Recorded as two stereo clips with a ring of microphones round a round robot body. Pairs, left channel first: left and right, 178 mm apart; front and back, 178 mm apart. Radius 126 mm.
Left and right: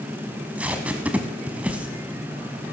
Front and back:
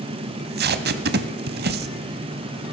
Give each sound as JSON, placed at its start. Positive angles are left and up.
{"t": 0.3, "sound": "tape being pulled", "azimuth_deg": -175, "distance_m": 0.8}